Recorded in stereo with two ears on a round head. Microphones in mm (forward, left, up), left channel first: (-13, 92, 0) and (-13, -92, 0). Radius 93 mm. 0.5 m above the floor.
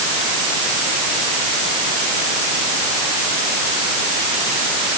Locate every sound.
Only background noise.